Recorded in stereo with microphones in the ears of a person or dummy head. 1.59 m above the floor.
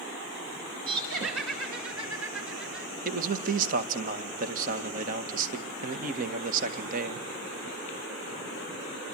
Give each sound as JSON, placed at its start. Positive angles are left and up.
{"t": 0.9, "sound": "laughter", "side_deg": -75, "distance_m": 5.5}
{"t": 3.0, "sound": "a man speaking", "side_deg": -45, "distance_m": 1.8}